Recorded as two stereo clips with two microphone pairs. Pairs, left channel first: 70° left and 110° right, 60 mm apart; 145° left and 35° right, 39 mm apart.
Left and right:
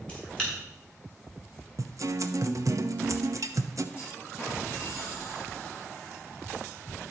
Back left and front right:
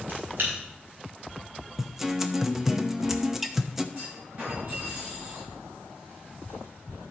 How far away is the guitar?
About 0.7 m.